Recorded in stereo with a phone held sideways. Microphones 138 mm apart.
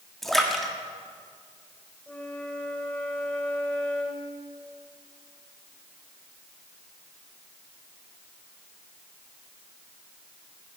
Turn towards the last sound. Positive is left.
turn(degrees=10)  # may be behind; listen again after turning